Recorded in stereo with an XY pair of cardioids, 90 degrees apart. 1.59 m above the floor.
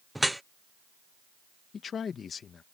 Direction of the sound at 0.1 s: 5° right.